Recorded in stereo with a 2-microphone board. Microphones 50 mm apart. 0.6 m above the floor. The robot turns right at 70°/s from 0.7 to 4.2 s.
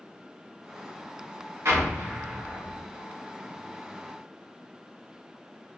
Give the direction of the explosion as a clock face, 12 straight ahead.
2 o'clock.